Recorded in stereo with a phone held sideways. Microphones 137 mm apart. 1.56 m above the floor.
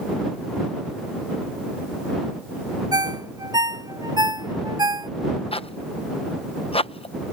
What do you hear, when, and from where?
2.9 s a ringtone: 30° right (ahead or behind)
5.5 s a zipper: 45° left (ahead or behind)